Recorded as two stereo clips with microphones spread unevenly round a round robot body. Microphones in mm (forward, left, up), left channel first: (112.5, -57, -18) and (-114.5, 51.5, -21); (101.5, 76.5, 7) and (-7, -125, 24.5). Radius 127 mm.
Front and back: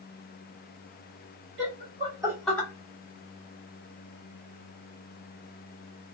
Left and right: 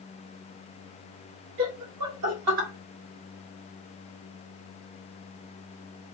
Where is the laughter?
160° right, 1.6 m; by 2.7 s 105° right, 1.5 m.